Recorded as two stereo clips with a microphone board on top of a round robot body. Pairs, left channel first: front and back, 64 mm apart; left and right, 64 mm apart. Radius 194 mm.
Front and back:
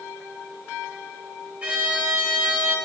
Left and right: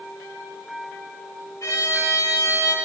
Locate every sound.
1.6 s a violin: 115° left, 5 m